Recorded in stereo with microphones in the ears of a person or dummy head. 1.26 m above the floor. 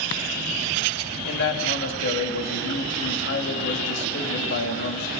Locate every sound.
1.2 s a man speaking: 65° left (ahead or behind), 3 m